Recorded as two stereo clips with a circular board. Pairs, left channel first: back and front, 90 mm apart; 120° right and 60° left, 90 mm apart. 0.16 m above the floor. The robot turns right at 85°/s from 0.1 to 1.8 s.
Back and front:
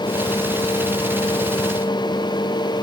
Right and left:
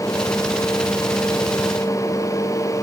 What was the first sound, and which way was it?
Only background noise.